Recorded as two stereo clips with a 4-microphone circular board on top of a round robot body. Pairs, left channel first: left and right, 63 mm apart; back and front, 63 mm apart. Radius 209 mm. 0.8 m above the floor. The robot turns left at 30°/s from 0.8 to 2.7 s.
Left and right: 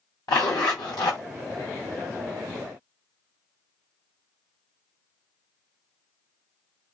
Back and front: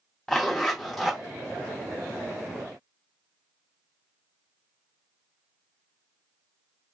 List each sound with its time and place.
0.3 s a zipper: 100° left, 0.6 m; by 1.2 s 90° left, 0.6 m